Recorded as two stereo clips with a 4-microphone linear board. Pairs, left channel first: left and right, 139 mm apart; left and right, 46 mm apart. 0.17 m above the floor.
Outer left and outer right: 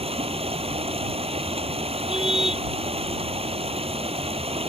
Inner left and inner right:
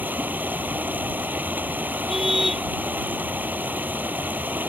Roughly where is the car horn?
Centre.